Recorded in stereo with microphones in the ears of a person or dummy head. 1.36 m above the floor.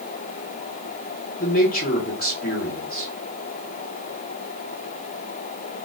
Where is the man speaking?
45° left (ahead or behind), 1.3 m.